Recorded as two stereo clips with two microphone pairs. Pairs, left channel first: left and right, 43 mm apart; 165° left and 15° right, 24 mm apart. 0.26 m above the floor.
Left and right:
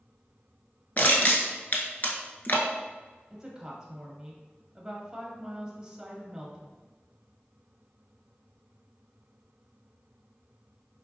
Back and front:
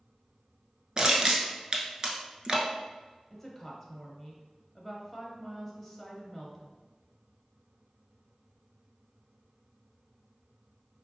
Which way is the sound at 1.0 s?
40° left.